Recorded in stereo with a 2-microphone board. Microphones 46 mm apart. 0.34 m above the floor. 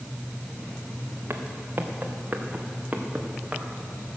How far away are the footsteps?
About 1.6 m.